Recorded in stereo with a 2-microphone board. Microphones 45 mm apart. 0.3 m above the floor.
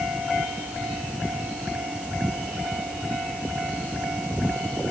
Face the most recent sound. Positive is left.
No sound to turn to.